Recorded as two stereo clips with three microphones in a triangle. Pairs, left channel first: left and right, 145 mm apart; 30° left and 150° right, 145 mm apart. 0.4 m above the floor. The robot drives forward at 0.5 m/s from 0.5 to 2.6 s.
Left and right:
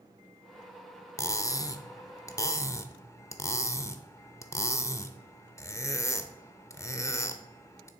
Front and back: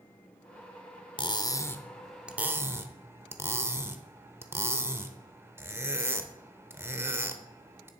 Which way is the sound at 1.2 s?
40° left.